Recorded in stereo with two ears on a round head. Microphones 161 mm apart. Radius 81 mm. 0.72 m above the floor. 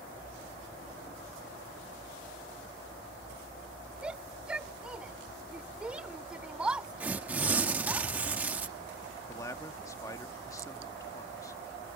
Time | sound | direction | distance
4.0 | a shout | 5° right (ahead or behind) | ?
7.0 | tearing paper | 10° right (ahead or behind) | ?
9.3 | a man speaking | 20° left (ahead or behind) | ?